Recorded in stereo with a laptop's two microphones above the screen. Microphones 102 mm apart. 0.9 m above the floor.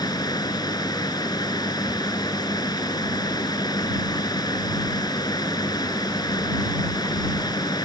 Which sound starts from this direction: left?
A fan, at 0.0 s.